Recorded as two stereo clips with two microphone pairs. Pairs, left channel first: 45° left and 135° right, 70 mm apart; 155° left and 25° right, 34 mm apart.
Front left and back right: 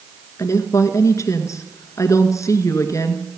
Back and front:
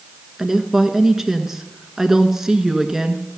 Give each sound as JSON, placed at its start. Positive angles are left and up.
{"t": 0.4, "sound": "a woman speaking", "azimuth_deg": 50, "distance_m": 1.5}